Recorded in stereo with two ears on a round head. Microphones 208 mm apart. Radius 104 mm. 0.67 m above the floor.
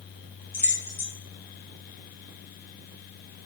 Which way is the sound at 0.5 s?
10° left (ahead or behind).